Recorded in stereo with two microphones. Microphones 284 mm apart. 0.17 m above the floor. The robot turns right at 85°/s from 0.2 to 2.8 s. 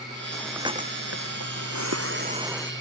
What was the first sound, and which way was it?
Breathing, 165° left.